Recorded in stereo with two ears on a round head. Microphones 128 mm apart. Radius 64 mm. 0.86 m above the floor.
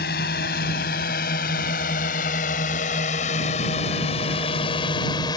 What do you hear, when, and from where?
0.0 s a drone: 75° left (ahead or behind); by 5.4 s 30° left (ahead or behind)